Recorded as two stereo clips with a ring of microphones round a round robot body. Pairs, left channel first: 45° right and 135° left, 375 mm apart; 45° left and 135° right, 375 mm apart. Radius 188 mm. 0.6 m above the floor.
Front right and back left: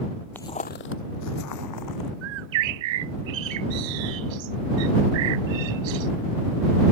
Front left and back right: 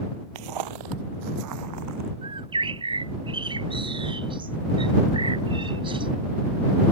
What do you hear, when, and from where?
0.3 s footsteps: 130° right; by 2.1 s 85° right
2.2 s a bird: 145° left